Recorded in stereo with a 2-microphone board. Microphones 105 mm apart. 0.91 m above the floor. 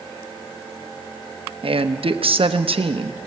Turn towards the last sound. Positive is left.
turn(degrees=-65)  # may be behind; listen again after turning